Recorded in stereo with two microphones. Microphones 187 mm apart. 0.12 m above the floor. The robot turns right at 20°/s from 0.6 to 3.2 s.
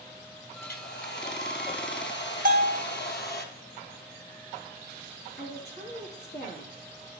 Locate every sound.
0.6 s a hair dryer: 60° left, 0.9 m; by 3.5 s 110° left, 0.9 m
2.5 s a bell: 50° right (ahead or behind), 1.2 m; by 2.8 s 55° right (ahead or behind), 1.2 m
5.4 s a woman speaking: 60° left (ahead or behind), 3.5 m